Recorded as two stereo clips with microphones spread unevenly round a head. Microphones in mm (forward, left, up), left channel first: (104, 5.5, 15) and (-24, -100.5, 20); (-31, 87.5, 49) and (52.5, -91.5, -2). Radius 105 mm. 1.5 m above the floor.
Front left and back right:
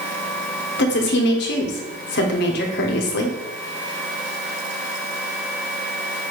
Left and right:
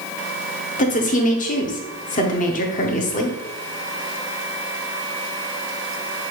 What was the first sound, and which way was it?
A woman speaking, 60° left.